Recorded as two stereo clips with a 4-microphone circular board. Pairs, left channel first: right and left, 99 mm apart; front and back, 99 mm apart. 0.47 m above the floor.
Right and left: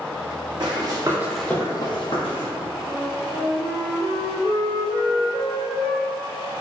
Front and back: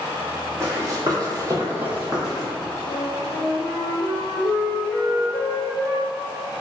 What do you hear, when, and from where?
0.6 s running footsteps: 125° left, 1.1 m; by 2.5 s 90° right, 1.2 m
2.9 s a flute: 60° right, 0.7 m